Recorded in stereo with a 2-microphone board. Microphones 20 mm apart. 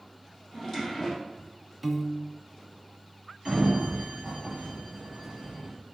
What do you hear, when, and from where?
0.5 s a drawer: centre (ahead or behind), 3.5 m
1.8 s a piano: 5° right (ahead or behind), 0.6 m
3.5 s a sliding door: 30° right (ahead or behind), 3.5 m